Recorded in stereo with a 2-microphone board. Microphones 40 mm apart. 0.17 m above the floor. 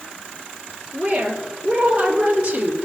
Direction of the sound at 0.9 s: 25° right (ahead or behind).